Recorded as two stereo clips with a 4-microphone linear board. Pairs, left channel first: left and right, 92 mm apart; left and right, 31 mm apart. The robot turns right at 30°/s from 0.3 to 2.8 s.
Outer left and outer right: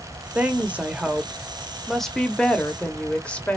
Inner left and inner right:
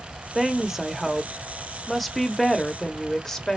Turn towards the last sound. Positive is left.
turn(degrees=15)  # may be behind; listen again after turning